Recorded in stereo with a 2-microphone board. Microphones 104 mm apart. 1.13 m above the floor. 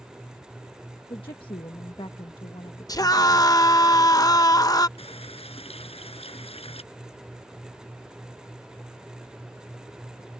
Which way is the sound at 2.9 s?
40° left (ahead or behind).